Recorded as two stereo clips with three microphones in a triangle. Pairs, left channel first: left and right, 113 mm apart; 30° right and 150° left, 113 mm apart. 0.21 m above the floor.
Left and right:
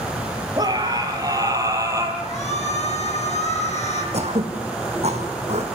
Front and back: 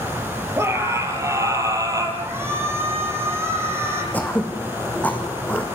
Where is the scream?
145° right, 4 m; by 2.1 s 150° right, 4.5 m.